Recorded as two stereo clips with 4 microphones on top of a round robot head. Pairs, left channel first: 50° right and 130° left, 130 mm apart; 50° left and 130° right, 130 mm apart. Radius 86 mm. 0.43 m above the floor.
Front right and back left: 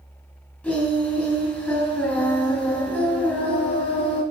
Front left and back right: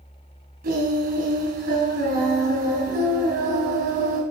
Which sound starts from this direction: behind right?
Singing, at 0.6 s.